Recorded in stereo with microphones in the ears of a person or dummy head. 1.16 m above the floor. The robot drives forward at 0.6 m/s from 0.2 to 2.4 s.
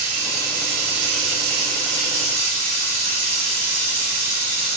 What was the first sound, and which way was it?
Running water, 45° right (ahead or behind).